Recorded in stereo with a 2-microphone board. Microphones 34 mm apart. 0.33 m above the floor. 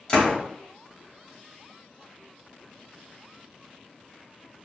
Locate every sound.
0.1 s a door slam: 30° left (ahead or behind), 1.1 m